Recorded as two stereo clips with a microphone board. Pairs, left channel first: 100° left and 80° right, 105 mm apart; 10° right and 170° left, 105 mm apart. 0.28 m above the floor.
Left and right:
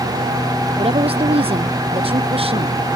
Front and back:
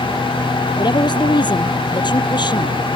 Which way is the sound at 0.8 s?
55° right.